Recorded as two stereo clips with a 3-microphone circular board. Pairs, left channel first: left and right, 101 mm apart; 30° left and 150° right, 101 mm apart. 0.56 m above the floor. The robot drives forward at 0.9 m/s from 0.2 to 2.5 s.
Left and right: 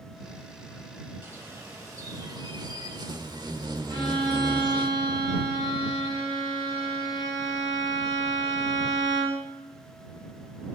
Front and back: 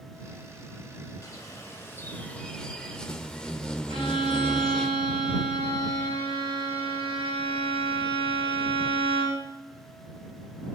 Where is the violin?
135° right, 6.5 m.